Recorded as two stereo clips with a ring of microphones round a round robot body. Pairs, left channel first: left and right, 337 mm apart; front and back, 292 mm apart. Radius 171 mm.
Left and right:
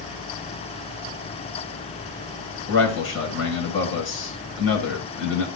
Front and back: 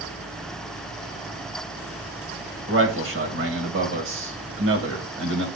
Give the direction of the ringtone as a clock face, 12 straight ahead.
No ringtone in this recording.